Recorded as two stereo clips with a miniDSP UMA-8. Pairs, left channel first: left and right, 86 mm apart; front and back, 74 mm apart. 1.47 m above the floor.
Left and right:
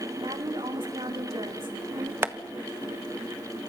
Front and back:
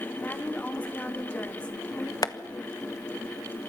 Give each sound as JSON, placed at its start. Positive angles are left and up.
{"t": 0.2, "sound": "a woman speaking", "azimuth_deg": -70, "distance_m": 3.0}
{"t": 2.2, "sound": "tapping", "azimuth_deg": -30, "distance_m": 1.2}